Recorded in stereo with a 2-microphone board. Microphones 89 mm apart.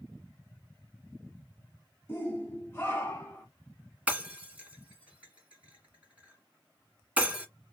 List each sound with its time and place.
2.1 s a shout: 25° left (ahead or behind), 1.4 m
4.1 s breaking glass: 15° right (ahead or behind), 1.6 m